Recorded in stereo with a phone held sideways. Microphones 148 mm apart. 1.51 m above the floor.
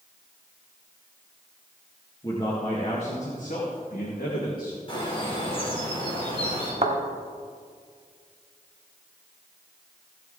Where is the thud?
45° right (ahead or behind), 1.3 m.